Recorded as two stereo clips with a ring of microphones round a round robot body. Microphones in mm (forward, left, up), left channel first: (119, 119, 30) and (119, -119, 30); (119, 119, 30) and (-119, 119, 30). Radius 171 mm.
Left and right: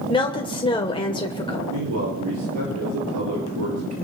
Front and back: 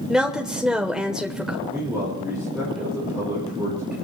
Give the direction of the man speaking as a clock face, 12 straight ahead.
3 o'clock.